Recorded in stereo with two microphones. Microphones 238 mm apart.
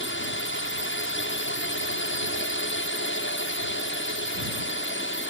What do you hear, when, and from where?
0.0 s a drone: 55° left (ahead or behind)